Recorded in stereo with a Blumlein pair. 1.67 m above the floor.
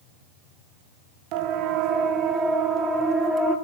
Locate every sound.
1.3 s a siren: 40° right, 3 m; by 3.5 s 10° right, 5 m